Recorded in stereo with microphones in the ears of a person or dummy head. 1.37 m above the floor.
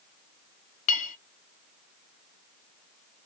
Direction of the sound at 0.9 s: 40° left (ahead or behind).